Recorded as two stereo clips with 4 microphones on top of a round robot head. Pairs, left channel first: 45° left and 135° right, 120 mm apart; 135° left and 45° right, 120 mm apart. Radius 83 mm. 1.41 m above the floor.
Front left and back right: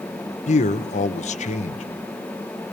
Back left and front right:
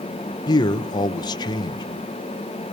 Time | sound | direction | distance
0.5 | a man speaking | 75° left | 1.3 m